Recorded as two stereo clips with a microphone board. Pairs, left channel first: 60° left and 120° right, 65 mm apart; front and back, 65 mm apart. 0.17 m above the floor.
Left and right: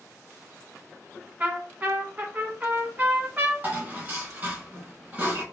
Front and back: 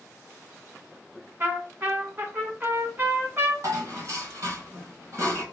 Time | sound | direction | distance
1.4 | a trumpet | 155° right | 1.1 m
3.6 | dishes clattering | 170° right | 1.4 m